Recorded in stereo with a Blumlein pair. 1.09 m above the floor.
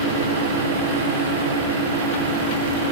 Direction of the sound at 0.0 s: 65° right.